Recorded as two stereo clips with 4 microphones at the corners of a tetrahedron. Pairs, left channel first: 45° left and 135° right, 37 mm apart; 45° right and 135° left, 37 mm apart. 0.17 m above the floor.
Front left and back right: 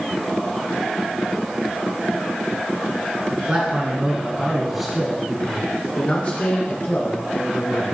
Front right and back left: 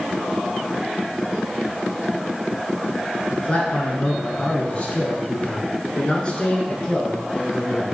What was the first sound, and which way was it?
A man speaking, 100° right.